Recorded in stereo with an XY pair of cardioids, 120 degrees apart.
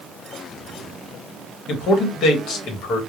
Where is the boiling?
No boiling in this recording.